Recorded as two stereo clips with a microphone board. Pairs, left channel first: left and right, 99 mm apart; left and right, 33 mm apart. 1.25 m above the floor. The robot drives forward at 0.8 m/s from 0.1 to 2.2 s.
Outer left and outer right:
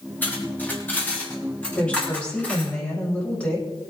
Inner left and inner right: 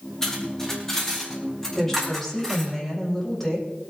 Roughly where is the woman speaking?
Centre.